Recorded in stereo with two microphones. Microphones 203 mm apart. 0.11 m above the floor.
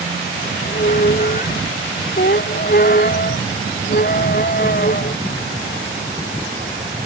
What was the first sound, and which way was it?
A squeak, 45° left (ahead or behind).